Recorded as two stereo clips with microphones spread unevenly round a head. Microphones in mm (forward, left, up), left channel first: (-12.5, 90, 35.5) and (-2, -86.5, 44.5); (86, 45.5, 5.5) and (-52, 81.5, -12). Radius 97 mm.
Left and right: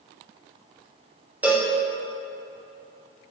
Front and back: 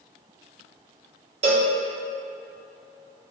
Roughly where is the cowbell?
Behind.